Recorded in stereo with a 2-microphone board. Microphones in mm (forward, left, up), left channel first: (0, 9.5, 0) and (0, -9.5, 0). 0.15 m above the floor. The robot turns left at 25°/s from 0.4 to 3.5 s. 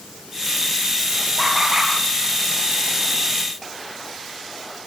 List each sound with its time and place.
1.4 s laughter: 15° right (ahead or behind), 4.5 m; by 1.9 s 25° right (ahead or behind), 4.5 m